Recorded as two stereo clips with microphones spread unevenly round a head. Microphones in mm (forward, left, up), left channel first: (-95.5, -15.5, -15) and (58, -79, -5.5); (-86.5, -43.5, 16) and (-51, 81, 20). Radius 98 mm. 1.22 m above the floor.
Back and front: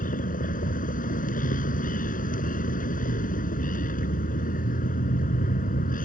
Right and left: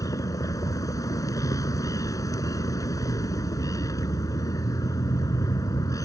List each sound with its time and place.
0.0 s a vehicle: 170° right